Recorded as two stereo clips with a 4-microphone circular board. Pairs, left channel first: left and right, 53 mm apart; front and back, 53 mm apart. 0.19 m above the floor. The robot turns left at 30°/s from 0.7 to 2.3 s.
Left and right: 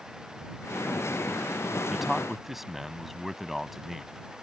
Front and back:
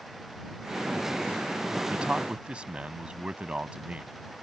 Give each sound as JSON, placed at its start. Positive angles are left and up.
{"t": 1.9, "sound": "a man speaking", "azimuth_deg": -160}